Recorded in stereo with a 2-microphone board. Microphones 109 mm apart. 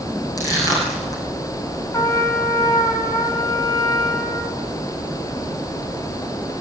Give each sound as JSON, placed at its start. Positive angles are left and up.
{"t": 0.4, "sound": "crushing", "side_deg": 35, "distance_m": 9.0}
{"t": 1.9, "sound": "a trumpet", "side_deg": 25, "distance_m": 4.0}